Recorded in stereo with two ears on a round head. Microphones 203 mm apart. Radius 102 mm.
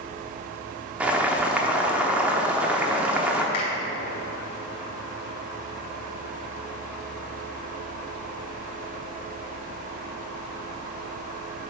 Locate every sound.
1.0 s boiling: 5° right (ahead or behind), 0.8 m
3.5 s a finger snap: 75° left (ahead or behind), 2.5 m